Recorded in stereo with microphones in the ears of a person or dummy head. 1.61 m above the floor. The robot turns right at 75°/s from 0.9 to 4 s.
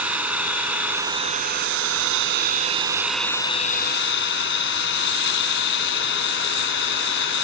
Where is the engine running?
170° right; by 7.5 s 65° left.